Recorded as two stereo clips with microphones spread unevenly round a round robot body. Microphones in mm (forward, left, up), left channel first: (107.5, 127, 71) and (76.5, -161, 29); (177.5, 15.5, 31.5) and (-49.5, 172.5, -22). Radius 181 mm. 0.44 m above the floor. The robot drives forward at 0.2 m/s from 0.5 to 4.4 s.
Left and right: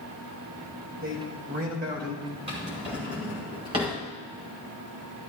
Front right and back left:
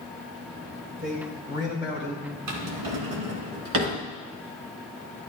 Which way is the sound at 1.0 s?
145° right.